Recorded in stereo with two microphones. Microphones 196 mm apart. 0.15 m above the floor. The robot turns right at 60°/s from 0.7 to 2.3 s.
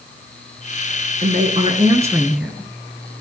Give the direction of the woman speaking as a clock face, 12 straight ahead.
2 o'clock.